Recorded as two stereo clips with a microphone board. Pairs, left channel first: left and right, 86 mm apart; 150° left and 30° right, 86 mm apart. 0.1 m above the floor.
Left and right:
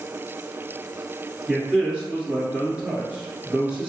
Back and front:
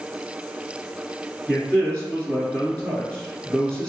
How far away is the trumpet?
No trumpet in this recording.